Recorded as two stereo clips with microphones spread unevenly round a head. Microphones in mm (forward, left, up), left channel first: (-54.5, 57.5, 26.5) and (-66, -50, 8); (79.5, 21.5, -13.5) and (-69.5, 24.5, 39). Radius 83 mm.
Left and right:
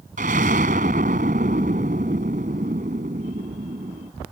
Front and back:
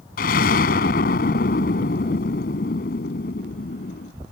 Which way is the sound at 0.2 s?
45° right.